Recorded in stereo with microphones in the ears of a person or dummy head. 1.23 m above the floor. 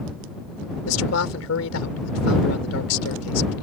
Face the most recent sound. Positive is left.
turn(degrees=85)